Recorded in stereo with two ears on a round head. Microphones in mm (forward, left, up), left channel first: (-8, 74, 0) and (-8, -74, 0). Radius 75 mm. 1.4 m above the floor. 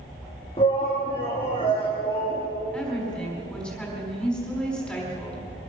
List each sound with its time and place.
0.6 s a shout: 35° left (ahead or behind), 2 m
2.7 s a woman speaking: 5° left (ahead or behind), 4.5 m